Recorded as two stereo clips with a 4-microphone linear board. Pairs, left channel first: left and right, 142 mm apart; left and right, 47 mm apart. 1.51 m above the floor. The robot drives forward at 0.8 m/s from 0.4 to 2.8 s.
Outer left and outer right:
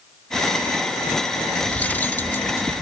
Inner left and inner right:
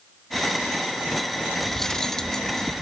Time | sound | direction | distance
1.7 | cutlery clinking | 10° left (ahead or behind) | ?